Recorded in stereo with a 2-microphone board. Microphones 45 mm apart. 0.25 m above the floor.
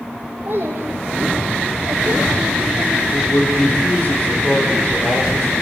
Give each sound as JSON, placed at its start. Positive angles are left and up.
{"t": 0.5, "sound": "a child speaking", "side_deg": -45, "distance_m": 5.5}
{"t": 3.1, "sound": "a man speaking", "side_deg": 45, "distance_m": 9.5}